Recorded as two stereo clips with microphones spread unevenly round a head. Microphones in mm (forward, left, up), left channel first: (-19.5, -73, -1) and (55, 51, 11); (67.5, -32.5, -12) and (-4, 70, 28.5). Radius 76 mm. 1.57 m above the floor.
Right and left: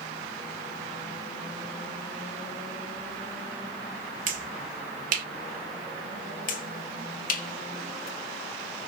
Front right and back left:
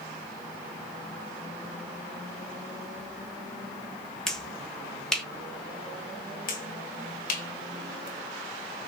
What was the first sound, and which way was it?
A finger snap, 35° left.